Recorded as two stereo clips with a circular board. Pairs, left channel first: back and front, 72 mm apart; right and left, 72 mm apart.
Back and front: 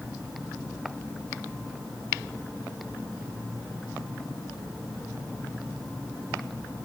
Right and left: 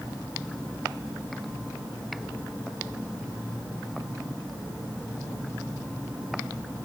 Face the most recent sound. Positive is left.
No sound to turn to.